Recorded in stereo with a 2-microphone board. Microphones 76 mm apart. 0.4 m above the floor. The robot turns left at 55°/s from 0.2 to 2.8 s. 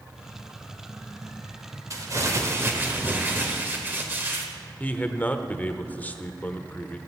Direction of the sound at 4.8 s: 20° left (ahead or behind).